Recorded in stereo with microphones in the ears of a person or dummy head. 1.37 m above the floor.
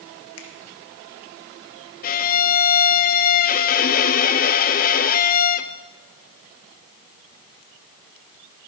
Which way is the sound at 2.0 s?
45° left (ahead or behind).